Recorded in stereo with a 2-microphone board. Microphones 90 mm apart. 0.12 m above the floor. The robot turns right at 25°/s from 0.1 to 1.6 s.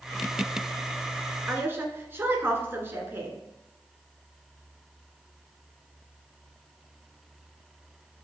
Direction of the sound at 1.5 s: 25° right (ahead or behind).